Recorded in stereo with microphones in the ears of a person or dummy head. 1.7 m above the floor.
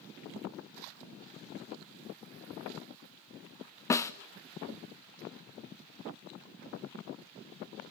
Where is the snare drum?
15° left (ahead or behind), 0.6 m.